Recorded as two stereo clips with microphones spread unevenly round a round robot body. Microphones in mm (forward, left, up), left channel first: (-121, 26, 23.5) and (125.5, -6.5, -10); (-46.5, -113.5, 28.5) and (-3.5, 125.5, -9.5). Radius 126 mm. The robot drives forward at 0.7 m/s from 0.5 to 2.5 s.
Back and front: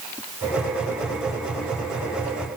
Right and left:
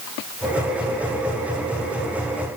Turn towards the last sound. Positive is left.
No sound to turn to.